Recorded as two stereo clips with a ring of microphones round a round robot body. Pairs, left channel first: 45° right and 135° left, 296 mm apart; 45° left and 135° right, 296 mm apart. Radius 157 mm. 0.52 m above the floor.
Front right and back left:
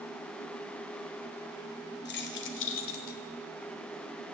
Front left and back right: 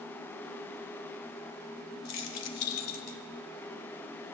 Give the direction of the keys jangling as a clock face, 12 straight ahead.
12 o'clock.